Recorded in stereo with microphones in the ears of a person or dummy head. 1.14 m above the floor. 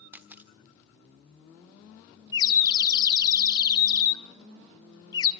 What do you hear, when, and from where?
0.1 s a camera shutter: 10° right (ahead or behind), 1.4 m
2.3 s a bird: 25° left (ahead or behind), 1.6 m